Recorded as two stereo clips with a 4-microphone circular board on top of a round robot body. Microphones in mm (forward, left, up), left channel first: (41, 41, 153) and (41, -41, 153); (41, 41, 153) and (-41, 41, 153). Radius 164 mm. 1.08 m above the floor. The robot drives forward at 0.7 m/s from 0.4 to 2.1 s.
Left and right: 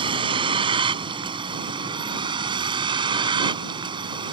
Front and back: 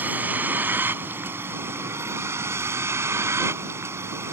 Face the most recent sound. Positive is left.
turn(degrees=-120)